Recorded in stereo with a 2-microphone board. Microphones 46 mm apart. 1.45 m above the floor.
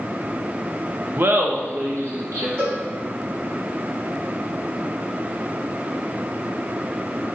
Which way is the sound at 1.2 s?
45° right (ahead or behind).